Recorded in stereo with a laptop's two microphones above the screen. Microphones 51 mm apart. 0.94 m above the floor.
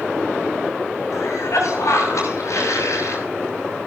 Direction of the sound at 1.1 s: 75° left (ahead or behind).